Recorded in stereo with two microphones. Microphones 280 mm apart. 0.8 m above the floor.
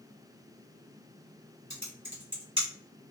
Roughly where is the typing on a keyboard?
Right.